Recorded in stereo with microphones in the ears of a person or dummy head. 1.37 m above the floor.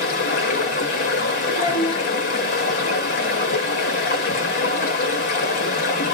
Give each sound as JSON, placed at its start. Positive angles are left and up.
{"t": 0.0, "sound": "running water", "side_deg": 40, "distance_m": 0.8}
{"t": 1.5, "sound": "a child speaking", "side_deg": 45, "distance_m": 1.7}